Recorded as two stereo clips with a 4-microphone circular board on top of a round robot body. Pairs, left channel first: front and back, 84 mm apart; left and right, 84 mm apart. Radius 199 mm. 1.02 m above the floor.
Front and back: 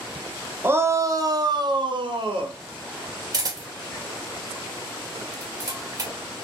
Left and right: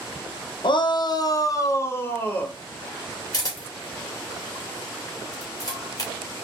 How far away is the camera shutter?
About 2.5 m.